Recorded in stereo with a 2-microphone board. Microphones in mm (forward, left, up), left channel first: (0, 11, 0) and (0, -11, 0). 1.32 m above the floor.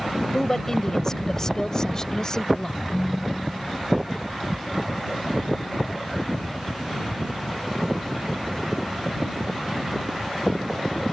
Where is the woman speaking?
20° left (ahead or behind); by 2.8 s 30° left (ahead or behind).